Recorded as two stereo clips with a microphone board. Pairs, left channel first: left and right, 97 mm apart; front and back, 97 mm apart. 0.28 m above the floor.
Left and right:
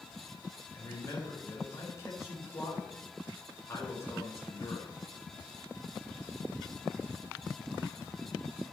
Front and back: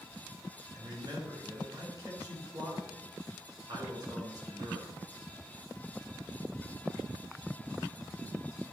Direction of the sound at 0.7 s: 145° left.